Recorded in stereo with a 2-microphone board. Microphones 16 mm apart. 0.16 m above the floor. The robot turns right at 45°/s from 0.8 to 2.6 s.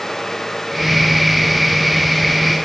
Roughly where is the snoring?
I don't hear snoring.